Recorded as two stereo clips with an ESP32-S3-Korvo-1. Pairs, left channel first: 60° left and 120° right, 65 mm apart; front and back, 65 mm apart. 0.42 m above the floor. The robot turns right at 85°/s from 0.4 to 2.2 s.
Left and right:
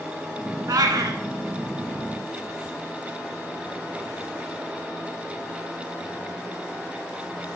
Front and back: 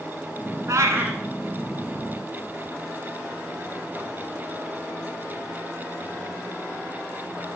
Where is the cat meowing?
145° right, 1.3 m; by 1.2 s 100° right, 1.3 m.